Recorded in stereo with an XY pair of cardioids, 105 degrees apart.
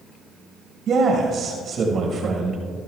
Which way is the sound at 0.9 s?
60° right.